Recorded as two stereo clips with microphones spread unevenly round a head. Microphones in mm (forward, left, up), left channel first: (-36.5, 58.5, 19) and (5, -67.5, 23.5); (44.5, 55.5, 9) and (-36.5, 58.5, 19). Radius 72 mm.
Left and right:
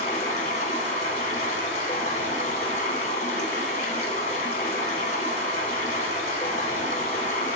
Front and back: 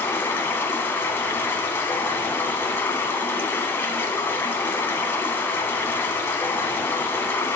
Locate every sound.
0.0 s running water: 60° left, 1.6 m